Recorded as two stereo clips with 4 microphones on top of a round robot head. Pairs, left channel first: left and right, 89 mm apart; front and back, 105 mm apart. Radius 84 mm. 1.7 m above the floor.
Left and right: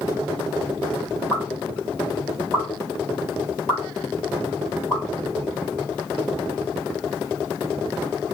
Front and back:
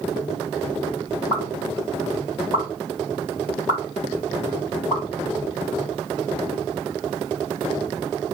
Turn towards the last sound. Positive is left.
turn(degrees=35)